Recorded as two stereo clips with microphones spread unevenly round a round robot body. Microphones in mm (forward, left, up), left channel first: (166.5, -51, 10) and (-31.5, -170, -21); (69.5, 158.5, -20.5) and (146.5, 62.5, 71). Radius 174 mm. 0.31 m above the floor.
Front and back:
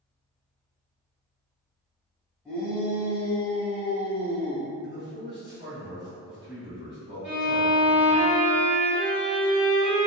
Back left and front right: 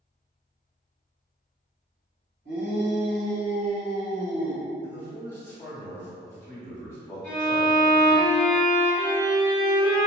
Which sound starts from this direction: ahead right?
A shout, at 2.5 s.